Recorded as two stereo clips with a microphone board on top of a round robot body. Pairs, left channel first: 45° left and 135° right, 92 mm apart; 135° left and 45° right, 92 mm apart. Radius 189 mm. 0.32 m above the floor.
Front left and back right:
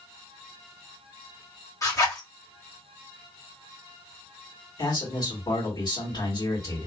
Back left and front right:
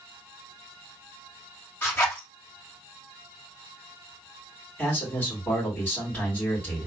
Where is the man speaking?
70° left, 2.5 m.